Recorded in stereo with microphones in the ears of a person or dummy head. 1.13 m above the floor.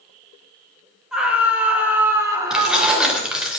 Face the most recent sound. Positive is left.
turn(degrees=0)  # may be behind; listen again after turning